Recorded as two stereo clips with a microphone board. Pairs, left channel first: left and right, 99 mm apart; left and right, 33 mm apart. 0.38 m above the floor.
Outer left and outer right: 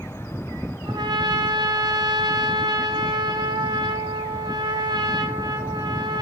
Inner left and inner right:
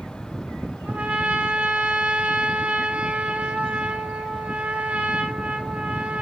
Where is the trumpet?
50° right (ahead or behind), 2 m.